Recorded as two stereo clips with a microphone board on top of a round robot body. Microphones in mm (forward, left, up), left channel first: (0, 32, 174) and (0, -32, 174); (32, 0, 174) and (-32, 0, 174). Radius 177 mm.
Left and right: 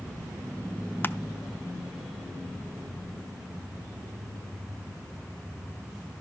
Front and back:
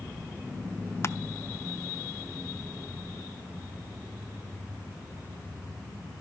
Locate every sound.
1.0 s crushing: 35° left, 0.7 m